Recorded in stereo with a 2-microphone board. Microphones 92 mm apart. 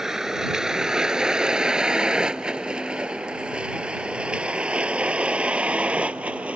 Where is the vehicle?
5° right (ahead or behind); by 6.6 s 15° right (ahead or behind).